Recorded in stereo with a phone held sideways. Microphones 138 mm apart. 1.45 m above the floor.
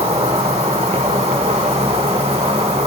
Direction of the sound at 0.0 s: 45° right (ahead or behind).